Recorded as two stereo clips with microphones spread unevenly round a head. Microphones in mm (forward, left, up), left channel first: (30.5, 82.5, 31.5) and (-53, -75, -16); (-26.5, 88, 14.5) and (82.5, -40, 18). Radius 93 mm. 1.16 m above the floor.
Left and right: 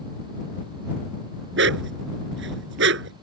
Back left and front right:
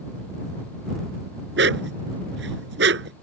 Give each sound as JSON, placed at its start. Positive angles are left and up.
{"t": 1.6, "sound": "a dog barking", "azimuth_deg": -85}